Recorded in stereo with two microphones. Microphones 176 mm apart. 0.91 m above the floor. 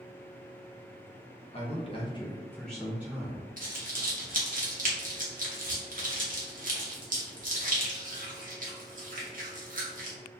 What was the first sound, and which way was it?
A man speaking, 35° left (ahead or behind).